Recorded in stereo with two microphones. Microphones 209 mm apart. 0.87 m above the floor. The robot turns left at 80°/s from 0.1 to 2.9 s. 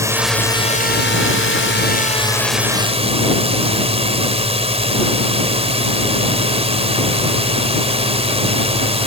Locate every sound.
0.0 s a drone: 165° right; by 9.1 s 30° right